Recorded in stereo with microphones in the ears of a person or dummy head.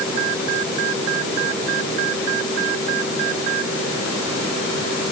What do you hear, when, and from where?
Only background noise.